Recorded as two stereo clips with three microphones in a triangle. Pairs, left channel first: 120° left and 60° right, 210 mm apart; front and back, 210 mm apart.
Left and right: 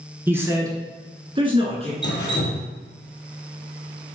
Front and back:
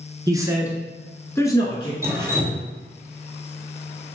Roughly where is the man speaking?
Behind right.